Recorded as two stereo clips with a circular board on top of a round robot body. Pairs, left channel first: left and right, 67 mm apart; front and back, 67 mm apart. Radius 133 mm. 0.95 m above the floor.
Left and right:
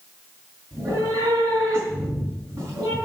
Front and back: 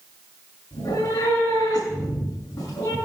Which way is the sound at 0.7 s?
45° right.